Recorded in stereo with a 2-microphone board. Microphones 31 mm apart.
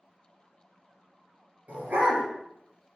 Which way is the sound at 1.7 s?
65° right (ahead or behind).